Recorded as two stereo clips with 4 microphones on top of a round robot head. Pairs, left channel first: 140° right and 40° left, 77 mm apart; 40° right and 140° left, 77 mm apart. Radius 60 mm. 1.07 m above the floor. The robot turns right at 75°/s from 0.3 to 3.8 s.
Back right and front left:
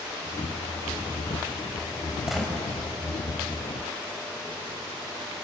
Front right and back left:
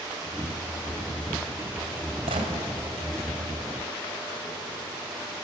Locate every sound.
2.3 s a gunshot: 125° left, 4 m; by 2.5 s 145° left, 4 m